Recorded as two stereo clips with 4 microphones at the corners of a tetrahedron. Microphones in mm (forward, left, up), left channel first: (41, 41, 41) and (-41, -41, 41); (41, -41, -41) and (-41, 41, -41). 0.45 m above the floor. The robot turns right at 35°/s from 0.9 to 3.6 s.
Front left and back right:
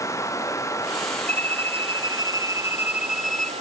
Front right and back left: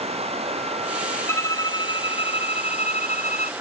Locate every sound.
0.0 s running water: 110° left; by 3.6 s 155° right
1.3 s a violin: 115° right; by 3.5 s 35° right